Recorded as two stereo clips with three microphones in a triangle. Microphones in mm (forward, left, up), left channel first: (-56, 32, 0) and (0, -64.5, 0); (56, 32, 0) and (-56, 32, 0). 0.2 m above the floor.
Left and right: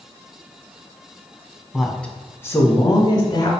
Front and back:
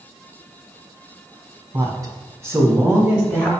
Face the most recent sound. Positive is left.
turn(degrees=95)